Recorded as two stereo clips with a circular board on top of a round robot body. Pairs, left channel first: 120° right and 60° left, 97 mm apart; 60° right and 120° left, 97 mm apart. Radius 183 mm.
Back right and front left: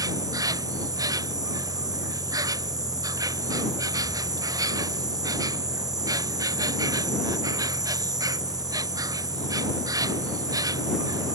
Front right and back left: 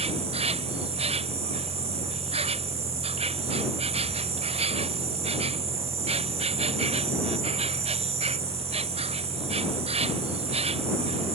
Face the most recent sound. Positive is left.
turn(degrees=115)